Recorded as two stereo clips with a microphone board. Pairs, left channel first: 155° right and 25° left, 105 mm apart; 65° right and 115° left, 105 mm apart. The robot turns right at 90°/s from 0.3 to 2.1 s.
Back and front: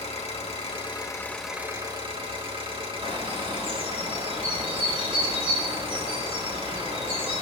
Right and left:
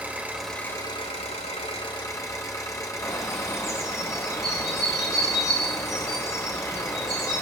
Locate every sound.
0.0 s an engine running: 170° right, 2.5 m; by 7.4 s 10° right, 2.5 m
3.0 s a bird: 5° right, 8.5 m